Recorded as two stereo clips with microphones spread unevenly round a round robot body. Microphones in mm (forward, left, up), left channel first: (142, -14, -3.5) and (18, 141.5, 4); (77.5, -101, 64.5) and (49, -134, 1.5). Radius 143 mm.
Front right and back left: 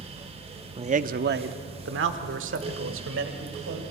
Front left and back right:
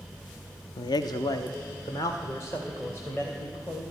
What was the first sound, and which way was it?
A man speaking, 105° left.